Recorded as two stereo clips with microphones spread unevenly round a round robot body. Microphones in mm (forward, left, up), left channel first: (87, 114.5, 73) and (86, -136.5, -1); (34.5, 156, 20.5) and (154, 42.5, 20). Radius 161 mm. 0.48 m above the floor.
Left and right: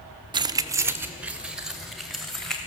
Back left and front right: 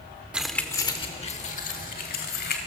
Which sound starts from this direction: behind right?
Keys jangling, at 0.3 s.